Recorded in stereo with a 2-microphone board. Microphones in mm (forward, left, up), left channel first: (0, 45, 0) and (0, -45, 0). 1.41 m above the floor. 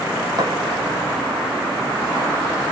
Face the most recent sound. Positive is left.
turn(degrees=-55)  # may be behind; listen again after turning